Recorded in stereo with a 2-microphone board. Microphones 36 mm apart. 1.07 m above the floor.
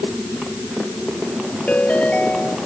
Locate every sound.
1.7 s a ringtone: 45° left (ahead or behind)